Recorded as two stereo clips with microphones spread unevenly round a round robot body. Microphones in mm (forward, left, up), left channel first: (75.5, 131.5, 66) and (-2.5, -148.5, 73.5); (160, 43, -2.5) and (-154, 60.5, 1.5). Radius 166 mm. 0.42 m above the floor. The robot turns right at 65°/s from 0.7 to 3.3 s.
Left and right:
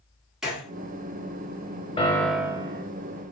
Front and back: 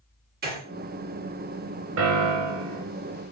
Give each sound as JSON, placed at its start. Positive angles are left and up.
{"t": 0.4, "sound": "a gunshot", "azimuth_deg": 165, "distance_m": 1.3}
{"t": 2.0, "sound": "a piano", "azimuth_deg": 140, "distance_m": 0.7}